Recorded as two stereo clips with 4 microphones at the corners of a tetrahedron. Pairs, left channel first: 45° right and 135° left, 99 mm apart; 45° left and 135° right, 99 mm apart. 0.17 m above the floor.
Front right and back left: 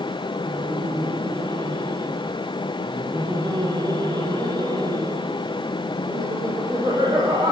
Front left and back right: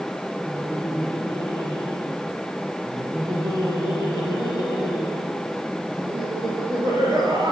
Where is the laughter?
Straight behind, 3.5 m.